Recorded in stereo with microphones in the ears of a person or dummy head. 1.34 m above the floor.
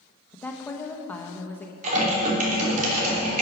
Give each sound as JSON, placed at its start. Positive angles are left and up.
{"t": 0.3, "sound": "a woman speaking", "side_deg": 10, "distance_m": 1.0}
{"t": 1.8, "sound": "typing on a keyboard", "side_deg": -40, "distance_m": 3.0}